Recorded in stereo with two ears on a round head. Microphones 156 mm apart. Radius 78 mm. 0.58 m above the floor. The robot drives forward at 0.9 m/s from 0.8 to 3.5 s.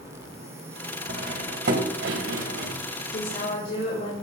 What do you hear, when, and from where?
1.1 s cutlery clinking: 55° right (ahead or behind), 2.0 m; by 2.7 s 75° right (ahead or behind), 1.6 m
3.1 s a woman speaking: 55° left (ahead or behind), 2 m; by 4.1 s 45° left (ahead or behind), 2.5 m